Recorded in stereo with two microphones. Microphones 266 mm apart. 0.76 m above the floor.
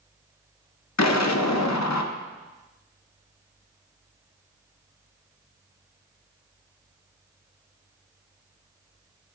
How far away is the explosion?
About 0.5 m.